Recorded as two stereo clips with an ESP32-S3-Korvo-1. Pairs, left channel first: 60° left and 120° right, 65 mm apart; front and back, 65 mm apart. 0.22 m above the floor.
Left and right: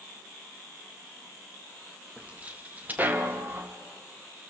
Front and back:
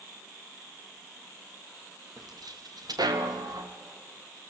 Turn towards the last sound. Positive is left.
turn(degrees=-175)